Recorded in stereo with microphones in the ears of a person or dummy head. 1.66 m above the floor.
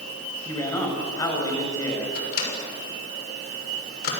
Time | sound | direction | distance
0.5 | a man speaking | 10° left (ahead or behind) | 7 m
2.1 | a microwave | 65° left (ahead or behind) | 6.5 m